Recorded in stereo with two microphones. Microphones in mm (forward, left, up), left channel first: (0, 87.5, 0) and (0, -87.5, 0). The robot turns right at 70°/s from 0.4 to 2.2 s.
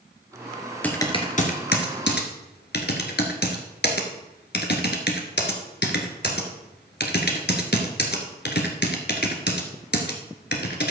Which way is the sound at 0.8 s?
10° left (ahead or behind).